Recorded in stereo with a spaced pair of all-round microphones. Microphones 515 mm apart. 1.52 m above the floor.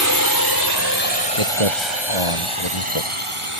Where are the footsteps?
75° left (ahead or behind); by 3.1 s 65° left (ahead or behind).